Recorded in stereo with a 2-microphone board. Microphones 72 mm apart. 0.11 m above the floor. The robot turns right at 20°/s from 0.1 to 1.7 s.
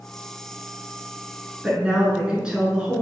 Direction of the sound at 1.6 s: 10° right (ahead or behind).